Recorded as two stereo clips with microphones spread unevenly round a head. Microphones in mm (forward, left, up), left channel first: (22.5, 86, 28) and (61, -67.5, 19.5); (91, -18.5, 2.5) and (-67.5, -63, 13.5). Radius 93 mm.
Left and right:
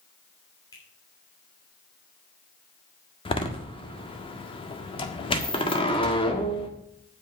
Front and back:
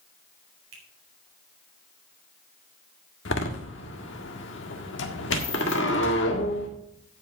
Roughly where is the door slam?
Ahead left.